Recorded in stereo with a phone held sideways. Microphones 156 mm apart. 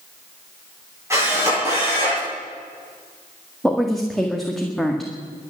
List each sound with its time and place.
1.1 s a camera shutter: 20° right (ahead or behind), 10 m
3.6 s a woman speaking: centre (ahead or behind), 1.7 m